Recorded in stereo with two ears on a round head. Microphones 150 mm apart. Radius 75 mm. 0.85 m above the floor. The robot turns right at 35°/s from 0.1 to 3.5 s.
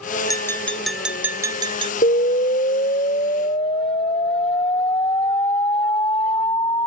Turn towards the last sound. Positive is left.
turn(degrees=145)